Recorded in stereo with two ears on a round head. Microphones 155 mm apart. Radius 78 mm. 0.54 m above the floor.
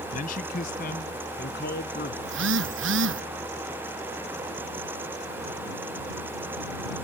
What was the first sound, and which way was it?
A man speaking, 50° left (ahead or behind).